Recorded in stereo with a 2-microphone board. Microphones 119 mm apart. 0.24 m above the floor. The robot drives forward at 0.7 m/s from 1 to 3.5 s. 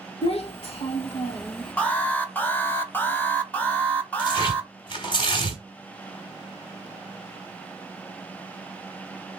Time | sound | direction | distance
0.2 | a child speaking | 55° left (ahead or behind) | 0.9 m
1.8 | an alarm | 10° left (ahead or behind) | 0.9 m
4.2 | tearing paper | 45° left (ahead or behind) | 1.7 m